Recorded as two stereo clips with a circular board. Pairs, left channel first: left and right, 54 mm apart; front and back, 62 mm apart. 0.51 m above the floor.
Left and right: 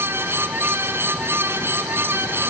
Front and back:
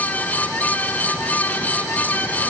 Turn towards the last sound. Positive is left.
No sound to turn to.